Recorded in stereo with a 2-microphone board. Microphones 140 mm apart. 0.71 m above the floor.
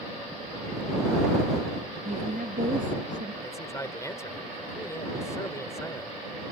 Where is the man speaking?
20° left (ahead or behind).